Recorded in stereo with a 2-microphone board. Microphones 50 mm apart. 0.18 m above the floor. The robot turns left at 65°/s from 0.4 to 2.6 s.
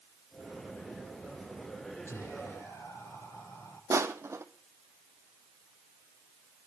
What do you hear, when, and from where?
2.1 s whispering: 110° left, 5.5 m; by 3.8 s 75° left, 5.5 m
3.9 s crushing: 65° right (ahead or behind), 1.2 m